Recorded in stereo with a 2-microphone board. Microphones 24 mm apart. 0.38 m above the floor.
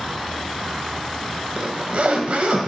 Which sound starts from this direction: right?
A zipper, at 1.6 s.